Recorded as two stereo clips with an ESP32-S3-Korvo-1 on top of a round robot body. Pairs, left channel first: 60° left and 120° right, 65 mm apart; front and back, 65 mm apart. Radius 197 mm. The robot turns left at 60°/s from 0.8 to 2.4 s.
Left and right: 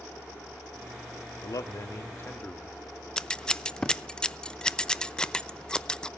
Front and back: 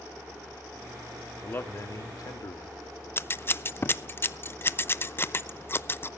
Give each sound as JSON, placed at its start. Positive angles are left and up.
{"t": 1.4, "sound": "a man speaking", "azimuth_deg": 60, "distance_m": 1.8}
{"t": 3.2, "sound": "scissors", "azimuth_deg": -10, "distance_m": 0.7}